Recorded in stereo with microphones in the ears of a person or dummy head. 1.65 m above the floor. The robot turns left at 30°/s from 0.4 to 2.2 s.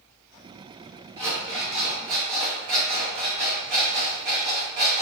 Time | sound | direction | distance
1.2 | an alarm clock | 15° right (ahead or behind) | 0.9 m